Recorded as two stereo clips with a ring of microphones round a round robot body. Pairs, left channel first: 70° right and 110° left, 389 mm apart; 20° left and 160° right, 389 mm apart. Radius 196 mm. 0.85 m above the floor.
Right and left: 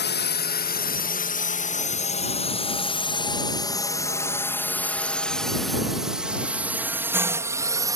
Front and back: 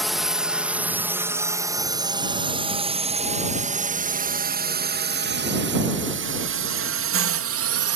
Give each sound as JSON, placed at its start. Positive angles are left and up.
{"t": 0.0, "sound": "a drone", "azimuth_deg": -70}